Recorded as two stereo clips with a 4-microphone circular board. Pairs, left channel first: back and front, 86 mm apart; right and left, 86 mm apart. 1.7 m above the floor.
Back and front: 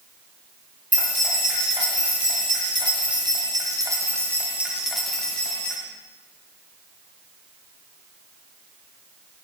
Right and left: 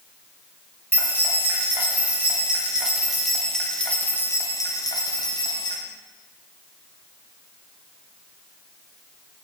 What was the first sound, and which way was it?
Keys jangling, 25° left.